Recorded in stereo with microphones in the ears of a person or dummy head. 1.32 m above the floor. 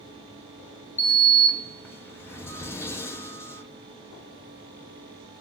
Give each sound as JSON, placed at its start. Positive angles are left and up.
{"t": 1.0, "sound": "a sliding door", "side_deg": 15, "distance_m": 0.9}